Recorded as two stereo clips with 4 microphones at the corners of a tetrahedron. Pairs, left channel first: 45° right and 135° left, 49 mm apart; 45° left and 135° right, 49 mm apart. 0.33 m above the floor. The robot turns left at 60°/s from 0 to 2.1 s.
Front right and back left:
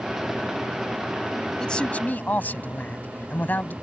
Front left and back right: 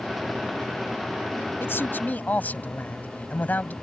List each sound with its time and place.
1.6 s a man speaking: 30° left; by 3.7 s straight ahead